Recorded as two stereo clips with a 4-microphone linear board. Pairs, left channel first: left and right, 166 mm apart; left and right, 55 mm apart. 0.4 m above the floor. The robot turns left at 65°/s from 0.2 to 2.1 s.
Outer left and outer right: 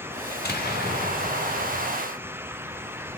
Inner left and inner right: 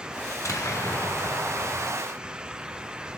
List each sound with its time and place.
0.3 s an explosion: 110° left, 2 m; by 1.9 s 5° left, 2 m